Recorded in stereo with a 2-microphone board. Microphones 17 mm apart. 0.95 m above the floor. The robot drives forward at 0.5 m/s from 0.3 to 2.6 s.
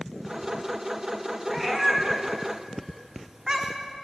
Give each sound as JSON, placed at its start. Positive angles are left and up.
{"t": 1.5, "sound": "a cat meowing", "side_deg": -15, "distance_m": 1.1}